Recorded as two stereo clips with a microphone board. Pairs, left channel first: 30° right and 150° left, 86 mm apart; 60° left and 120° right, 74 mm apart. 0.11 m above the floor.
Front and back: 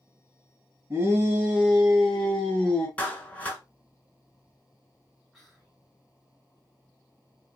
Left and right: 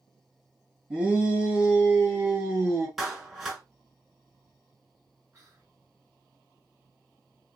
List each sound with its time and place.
0.9 s a shout: 175° left, 1.6 m; by 2.9 s 90° right, 1.7 m
3.0 s a clap: 45° right, 1.1 m
5.3 s whispering: 120° right, 2.0 m